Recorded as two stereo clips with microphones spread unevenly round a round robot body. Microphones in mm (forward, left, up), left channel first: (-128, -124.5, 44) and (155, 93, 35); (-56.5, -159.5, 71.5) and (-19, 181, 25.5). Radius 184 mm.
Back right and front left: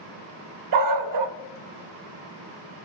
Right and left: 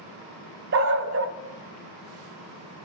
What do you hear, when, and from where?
0.7 s a dog barking: 25° left, 0.7 m